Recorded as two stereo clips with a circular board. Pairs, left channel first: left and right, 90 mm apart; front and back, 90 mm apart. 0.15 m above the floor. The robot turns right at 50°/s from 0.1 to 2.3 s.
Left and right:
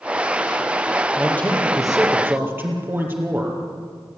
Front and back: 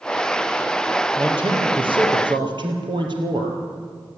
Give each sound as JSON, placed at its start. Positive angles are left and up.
{"t": 1.2, "sound": "a man speaking", "azimuth_deg": 150, "distance_m": 4.0}